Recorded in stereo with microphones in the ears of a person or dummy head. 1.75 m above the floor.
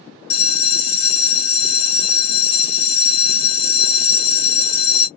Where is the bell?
35° left (ahead or behind), 0.8 m.